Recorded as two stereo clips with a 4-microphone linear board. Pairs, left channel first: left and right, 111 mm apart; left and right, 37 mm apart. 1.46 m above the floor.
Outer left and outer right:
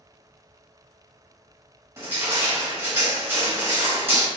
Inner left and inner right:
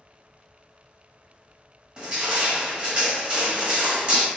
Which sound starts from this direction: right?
Crushing, at 2.0 s.